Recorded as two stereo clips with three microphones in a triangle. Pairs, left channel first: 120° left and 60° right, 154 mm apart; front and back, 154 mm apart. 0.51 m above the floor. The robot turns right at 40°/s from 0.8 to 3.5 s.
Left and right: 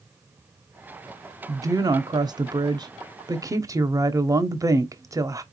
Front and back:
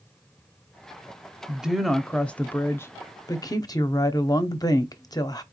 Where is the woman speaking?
105° right, 0.8 m; by 5.4 s 25° right, 0.8 m.